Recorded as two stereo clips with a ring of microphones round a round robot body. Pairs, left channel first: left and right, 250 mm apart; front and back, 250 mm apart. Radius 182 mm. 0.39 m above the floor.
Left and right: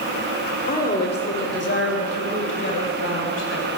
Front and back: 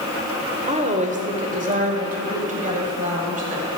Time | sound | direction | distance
0.7 | a woman speaking | 130° left | 1.4 m